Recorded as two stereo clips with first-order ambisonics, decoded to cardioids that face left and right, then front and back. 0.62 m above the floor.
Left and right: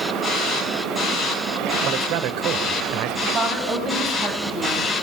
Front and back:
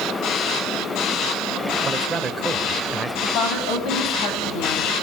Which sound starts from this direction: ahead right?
A woman speaking, at 3.2 s.